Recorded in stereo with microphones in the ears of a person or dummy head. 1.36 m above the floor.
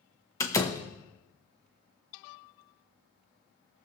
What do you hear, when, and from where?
0.4 s a door slam: 15° left (ahead or behind), 0.9 m